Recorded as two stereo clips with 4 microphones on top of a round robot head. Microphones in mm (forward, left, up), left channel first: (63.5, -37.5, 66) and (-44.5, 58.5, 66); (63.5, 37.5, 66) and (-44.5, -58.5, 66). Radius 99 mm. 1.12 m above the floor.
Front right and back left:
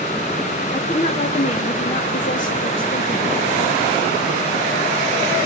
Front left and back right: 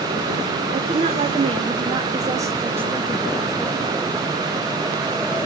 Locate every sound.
0.7 s a woman speaking: 95° right, 2.5 m; by 3.8 s 45° right, 2 m